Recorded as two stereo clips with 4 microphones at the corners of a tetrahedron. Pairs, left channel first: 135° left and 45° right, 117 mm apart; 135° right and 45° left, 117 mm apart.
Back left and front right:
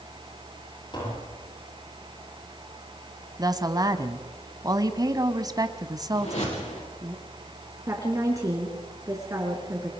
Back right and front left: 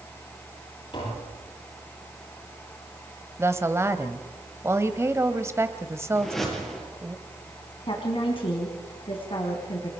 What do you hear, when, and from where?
0.9 s tapping: straight behind, 9.5 m
3.4 s a woman speaking: 10° right, 1.3 m
6.2 s a whoosh: 135° left, 6 m
7.9 s a woman speaking: 100° right, 3 m